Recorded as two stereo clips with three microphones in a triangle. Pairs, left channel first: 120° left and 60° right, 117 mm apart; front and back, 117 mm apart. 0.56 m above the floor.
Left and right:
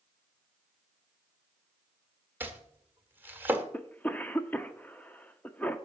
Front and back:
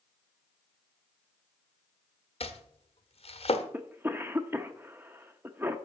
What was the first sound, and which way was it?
Chopping, 10° left.